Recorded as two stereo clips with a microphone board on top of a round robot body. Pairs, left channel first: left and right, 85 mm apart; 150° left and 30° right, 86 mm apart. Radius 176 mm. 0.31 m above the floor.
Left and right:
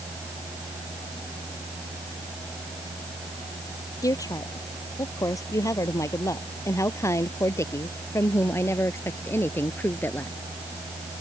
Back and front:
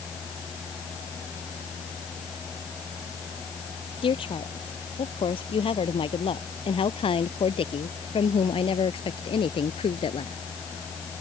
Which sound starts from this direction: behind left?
A woman speaking, at 4.0 s.